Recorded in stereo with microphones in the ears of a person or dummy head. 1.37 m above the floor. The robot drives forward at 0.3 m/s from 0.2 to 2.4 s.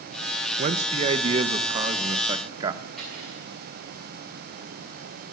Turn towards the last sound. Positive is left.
turn(degrees=5)  # may be behind; listen again after turning